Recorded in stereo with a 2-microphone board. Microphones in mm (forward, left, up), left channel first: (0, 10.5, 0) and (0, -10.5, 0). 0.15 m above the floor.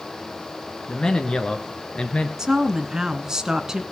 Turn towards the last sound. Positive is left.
turn(degrees=-30)  # may be behind; listen again after turning